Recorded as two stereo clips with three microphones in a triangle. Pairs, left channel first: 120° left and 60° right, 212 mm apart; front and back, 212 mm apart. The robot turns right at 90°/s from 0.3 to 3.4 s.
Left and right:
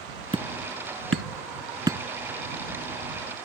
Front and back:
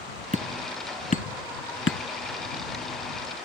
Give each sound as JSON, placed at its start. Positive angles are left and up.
{"t": 0.3, "sound": "hammering", "azimuth_deg": -125}